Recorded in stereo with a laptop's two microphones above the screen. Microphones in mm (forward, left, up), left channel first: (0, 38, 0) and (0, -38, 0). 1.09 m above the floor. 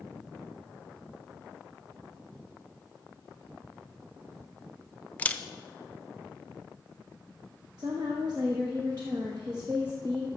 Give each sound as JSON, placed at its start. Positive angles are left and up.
{"t": 5.2, "sound": "a camera shutter", "side_deg": 20, "distance_m": 0.5}
{"t": 7.8, "sound": "a woman speaking", "side_deg": -60, "distance_m": 1.1}